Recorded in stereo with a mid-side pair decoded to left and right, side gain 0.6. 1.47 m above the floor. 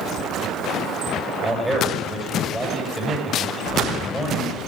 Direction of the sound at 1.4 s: Straight ahead.